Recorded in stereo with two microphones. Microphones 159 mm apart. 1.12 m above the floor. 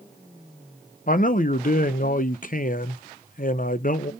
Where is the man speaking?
60° left (ahead or behind), 0.6 m.